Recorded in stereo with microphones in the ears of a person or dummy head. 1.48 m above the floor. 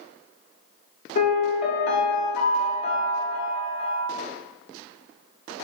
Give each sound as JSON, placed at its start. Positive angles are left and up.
{"t": 1.1, "sound": "a piano", "side_deg": 45, "distance_m": 0.6}